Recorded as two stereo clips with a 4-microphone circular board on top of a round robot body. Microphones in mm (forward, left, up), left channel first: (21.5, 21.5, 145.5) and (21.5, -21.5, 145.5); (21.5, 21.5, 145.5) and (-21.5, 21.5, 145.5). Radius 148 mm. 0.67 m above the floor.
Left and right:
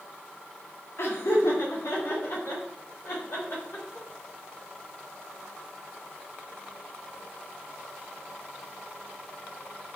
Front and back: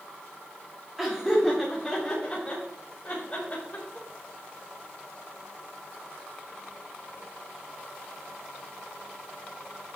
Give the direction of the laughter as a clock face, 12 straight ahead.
9 o'clock.